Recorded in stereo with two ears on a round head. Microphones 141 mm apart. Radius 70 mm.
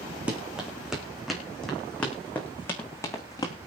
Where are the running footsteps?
10° right (ahead or behind), 4.5 m; by 3.5 s 25° left (ahead or behind), 4 m.